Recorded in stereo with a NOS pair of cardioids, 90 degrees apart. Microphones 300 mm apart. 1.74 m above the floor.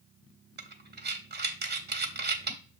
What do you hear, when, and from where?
0.6 s breathing: 35° right, 0.9 m